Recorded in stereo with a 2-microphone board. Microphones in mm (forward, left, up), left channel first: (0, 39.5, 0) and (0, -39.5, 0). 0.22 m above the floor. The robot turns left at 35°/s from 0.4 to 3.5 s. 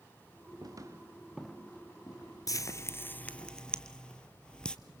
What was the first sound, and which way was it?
Footsteps, 55° right (ahead or behind).